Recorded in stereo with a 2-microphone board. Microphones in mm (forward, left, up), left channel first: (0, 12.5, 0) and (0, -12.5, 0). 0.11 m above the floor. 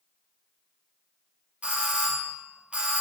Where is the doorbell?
55° right (ahead or behind), 3 m.